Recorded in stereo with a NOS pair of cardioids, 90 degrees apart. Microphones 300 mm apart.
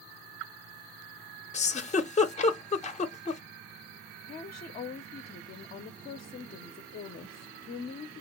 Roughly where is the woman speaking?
Ahead left.